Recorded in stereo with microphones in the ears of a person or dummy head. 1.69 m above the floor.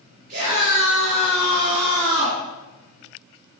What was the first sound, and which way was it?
A scream, 65° right (ahead or behind).